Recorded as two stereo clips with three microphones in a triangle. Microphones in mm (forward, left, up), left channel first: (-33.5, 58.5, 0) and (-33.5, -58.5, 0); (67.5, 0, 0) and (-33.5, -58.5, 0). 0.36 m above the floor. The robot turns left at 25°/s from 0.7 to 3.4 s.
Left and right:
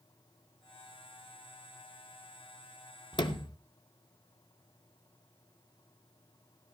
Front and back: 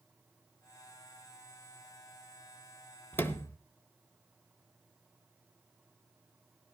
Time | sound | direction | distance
3.1 | a sliding door | 95° left | 0.8 m